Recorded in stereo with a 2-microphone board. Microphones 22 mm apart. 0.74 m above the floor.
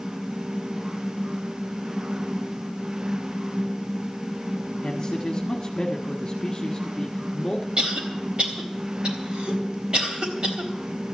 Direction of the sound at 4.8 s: 35° left (ahead or behind).